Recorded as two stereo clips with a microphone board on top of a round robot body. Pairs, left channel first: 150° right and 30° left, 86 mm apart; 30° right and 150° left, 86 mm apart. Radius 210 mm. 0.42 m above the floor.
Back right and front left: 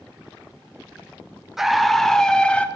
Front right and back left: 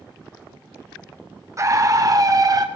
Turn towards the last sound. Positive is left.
turn(degrees=140)